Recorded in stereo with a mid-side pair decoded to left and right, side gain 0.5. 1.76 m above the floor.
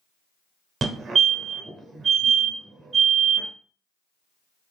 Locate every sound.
0.8 s a fire alarm: 50° right, 1.1 m